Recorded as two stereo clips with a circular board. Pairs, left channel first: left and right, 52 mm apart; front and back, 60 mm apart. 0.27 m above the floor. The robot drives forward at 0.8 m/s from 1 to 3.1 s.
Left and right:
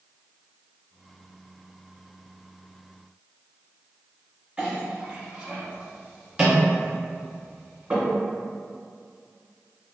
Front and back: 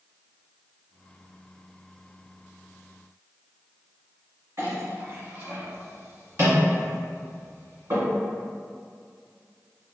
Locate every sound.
4.6 s a clink: 160° right, 1.6 m